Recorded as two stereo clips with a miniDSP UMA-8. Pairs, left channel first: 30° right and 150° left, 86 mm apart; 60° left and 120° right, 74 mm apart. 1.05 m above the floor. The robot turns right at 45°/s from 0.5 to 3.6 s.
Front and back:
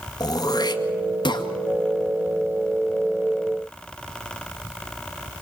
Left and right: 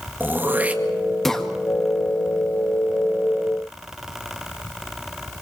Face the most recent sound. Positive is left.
turn(degrees=80)